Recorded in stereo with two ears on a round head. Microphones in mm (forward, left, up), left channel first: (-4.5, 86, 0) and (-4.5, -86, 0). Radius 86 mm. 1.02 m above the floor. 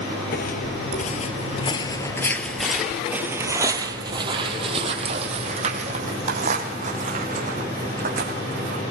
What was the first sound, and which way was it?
Footsteps, 50° left (ahead or behind).